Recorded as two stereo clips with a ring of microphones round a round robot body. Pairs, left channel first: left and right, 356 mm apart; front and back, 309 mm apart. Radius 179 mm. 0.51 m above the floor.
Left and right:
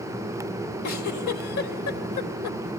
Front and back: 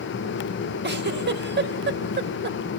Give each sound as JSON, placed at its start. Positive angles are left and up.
{"t": 0.8, "sound": "a giggle", "azimuth_deg": 125, "distance_m": 3.0}